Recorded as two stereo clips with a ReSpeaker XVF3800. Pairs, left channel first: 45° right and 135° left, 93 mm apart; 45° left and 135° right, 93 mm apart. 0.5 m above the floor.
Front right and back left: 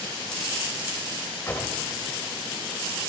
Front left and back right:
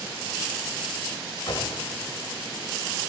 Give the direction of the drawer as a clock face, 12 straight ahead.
11 o'clock.